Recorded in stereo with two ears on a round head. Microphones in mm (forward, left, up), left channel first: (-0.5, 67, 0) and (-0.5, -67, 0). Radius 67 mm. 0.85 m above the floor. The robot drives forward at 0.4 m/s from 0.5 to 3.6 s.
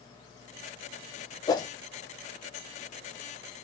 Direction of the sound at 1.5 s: 25° left (ahead or behind).